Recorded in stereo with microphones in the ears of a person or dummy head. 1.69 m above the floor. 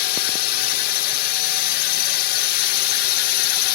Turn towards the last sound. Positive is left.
turn(degrees=60)  # may be behind; listen again after turning